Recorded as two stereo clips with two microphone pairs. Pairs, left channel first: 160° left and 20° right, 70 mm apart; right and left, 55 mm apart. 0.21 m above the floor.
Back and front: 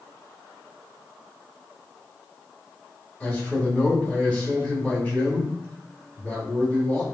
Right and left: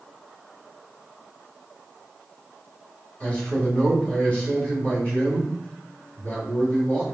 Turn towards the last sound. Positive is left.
turn(degrees=-135)